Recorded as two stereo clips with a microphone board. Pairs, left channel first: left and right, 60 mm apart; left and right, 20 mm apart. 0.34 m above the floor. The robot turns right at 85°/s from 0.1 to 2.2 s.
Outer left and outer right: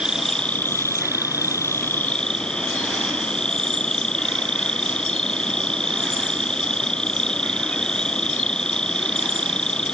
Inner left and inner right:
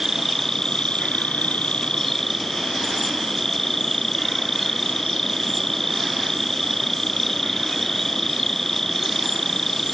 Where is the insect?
15° right; by 9.9 s 165° left.